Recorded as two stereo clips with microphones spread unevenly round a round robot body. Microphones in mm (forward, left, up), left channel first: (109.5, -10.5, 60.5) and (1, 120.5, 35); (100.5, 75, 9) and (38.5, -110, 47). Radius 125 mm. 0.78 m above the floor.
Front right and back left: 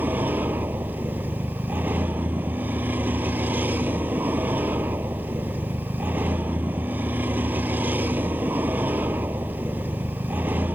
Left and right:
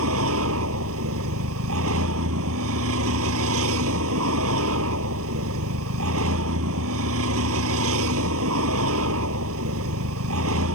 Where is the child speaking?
No child speaking in this recording.